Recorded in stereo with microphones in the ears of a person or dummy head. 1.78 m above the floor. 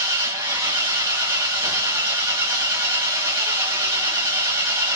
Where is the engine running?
15° right (ahead or behind), 0.8 m.